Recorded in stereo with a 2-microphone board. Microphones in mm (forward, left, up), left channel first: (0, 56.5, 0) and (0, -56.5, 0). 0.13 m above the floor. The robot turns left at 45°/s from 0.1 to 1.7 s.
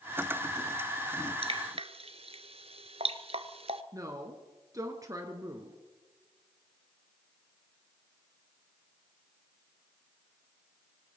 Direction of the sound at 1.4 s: 60° right (ahead or behind).